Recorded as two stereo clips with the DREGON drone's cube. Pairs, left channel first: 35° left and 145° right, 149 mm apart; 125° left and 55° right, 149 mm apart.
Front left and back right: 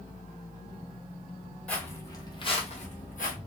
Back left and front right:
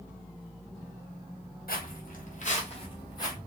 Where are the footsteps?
115° left, 1.0 m; by 3.4 s 55° left, 1.1 m.